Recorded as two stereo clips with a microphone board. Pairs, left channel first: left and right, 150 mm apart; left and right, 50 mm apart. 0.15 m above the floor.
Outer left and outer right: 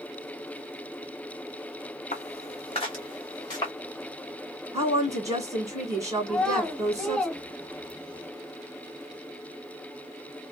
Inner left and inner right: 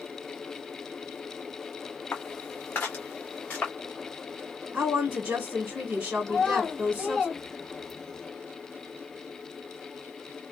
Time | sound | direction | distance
2.1 | footsteps | 55° left (ahead or behind) | 0.6 m
4.7 | a woman speaking | 25° right (ahead or behind) | 1.6 m
6.3 | a child speaking | 5° left (ahead or behind) | 0.8 m